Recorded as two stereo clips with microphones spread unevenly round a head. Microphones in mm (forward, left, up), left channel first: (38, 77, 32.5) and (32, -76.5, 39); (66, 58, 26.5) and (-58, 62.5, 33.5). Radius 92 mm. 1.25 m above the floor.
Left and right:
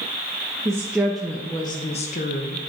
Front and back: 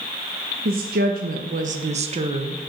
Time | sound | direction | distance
0.7 | a woman speaking | 165° right | 0.9 m